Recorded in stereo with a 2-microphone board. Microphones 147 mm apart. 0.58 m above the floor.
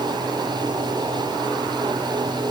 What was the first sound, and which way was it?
Only background noise.